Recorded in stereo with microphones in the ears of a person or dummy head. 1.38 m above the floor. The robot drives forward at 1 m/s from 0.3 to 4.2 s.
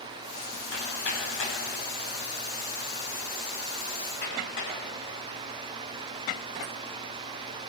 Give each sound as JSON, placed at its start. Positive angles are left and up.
{"t": 0.7, "sound": "hammering", "side_deg": 75, "distance_m": 10.0}